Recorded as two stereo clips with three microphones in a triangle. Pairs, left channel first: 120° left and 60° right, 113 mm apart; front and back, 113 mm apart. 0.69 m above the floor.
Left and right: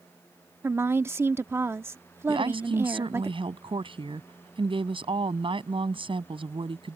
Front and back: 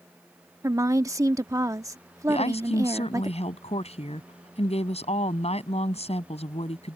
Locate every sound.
0.6 s a woman speaking: 125° right
2.3 s a woman speaking: 20° right